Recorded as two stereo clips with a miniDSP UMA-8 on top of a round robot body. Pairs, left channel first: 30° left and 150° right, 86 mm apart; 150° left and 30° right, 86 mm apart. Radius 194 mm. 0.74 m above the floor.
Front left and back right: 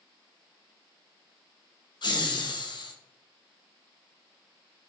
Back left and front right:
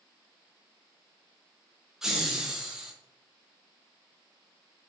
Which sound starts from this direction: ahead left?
Laughter, at 2.0 s.